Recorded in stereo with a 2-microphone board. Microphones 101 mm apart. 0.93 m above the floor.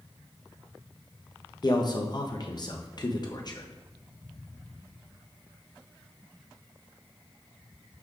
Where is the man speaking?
45° left (ahead or behind), 0.6 m.